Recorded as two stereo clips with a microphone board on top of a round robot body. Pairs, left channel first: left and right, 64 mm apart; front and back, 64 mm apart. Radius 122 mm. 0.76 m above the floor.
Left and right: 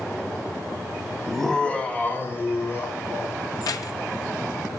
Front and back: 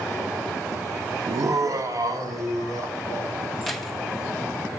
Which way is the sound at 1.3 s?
175° right.